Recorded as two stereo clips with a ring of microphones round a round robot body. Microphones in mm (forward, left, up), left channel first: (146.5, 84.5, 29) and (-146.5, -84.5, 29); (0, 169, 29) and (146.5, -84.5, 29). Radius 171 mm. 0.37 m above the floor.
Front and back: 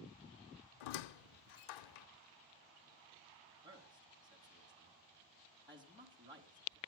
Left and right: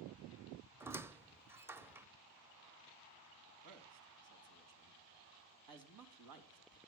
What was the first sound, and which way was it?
A squeak, 25° left.